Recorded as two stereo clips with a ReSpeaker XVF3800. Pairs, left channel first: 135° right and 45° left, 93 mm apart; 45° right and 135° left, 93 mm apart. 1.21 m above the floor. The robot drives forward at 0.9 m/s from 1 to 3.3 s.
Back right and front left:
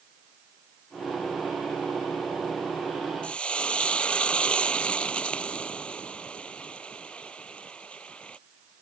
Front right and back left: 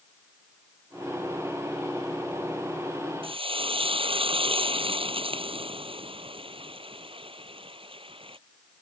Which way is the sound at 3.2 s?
145° left.